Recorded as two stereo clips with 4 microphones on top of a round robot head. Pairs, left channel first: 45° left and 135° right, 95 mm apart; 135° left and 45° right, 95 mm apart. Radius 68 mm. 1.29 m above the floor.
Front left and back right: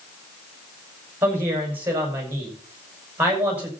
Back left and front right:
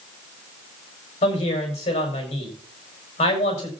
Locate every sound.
1.2 s a woman speaking: 155° left, 6 m